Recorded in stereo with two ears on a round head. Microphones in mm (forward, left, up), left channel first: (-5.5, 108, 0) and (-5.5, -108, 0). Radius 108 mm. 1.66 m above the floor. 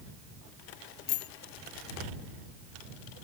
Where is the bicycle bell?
45° left (ahead or behind).